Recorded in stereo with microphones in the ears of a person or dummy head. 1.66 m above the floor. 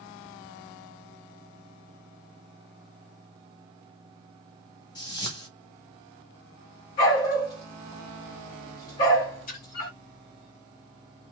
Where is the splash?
40° left (ahead or behind), 0.9 m.